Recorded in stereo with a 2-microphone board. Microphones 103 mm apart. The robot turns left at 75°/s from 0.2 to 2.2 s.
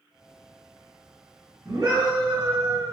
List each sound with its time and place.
1.6 s a scream: 50° right, 1.5 m; by 2.9 s 90° right, 1.5 m